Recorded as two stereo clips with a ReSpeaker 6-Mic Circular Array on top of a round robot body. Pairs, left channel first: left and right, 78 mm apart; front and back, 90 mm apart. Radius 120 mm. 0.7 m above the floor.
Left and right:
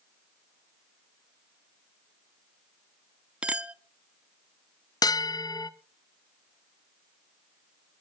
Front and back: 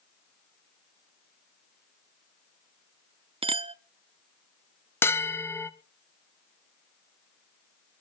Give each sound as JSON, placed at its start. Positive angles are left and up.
{"t": 3.4, "sound": "a clink", "azimuth_deg": -165, "distance_m": 0.8}
{"t": 5.0, "sound": "a bell", "azimuth_deg": 60, "distance_m": 1.1}